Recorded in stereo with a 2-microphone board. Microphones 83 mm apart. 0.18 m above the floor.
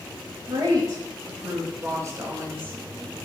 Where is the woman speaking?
45° right (ahead or behind), 3.5 m; by 2.8 s 25° right (ahead or behind), 2.5 m.